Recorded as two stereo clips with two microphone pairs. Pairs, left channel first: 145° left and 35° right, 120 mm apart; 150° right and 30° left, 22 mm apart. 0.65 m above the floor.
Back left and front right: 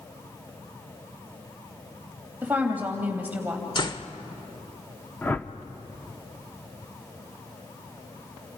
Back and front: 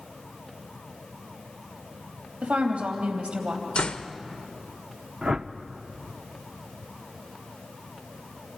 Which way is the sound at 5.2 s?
75° left.